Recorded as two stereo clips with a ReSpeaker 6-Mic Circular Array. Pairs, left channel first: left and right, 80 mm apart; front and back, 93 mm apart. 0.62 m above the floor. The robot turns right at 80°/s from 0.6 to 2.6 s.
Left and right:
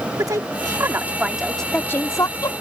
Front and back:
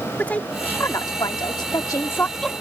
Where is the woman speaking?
70° right; by 2.5 s 85° left.